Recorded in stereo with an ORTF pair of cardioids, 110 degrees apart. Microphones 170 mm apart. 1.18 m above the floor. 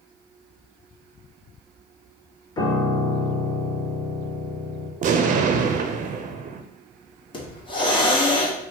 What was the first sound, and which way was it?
A piano, 25° left.